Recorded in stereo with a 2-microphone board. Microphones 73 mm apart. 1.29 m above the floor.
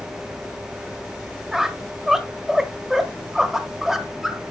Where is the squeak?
5° right (ahead or behind), 1.1 m.